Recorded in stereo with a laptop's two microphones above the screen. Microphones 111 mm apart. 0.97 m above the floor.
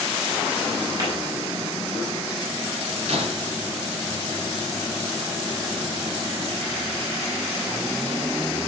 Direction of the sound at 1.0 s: 35° right (ahead or behind).